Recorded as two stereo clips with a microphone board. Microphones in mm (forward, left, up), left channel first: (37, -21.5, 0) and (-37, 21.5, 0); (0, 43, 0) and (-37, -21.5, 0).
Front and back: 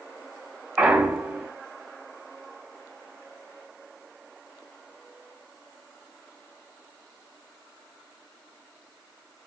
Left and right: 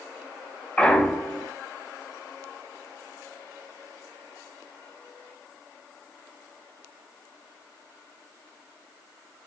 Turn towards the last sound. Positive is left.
turn(degrees=105)